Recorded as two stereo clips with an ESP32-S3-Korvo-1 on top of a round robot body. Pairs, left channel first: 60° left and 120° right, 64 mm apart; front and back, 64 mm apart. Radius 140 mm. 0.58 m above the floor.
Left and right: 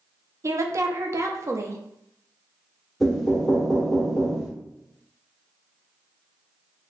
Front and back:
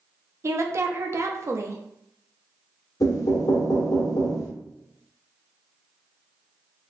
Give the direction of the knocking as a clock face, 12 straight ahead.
1 o'clock.